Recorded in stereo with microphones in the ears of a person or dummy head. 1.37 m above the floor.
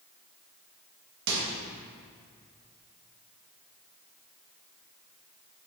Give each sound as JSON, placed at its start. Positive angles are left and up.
{"t": 1.3, "sound": "a microwave", "side_deg": -70, "distance_m": 1.8}